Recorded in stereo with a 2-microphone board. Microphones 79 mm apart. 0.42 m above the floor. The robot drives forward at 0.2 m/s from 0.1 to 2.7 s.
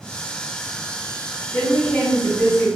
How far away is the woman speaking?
About 1.3 m.